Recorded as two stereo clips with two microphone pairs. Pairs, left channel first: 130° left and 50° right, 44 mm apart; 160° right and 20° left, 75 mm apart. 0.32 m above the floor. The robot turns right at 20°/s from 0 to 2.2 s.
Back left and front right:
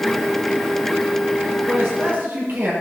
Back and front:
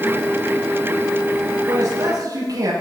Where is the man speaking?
20° right, 7.5 m; by 2.7 s 10° right, 7.5 m.